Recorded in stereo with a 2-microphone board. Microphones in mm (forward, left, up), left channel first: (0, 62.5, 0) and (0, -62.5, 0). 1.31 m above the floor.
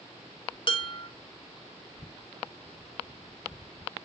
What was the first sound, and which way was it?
Dishes clattering, 40° left (ahead or behind).